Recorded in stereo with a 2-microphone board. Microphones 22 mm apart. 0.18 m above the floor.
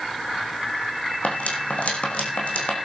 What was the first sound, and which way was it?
Cutlery clinking, 85° left.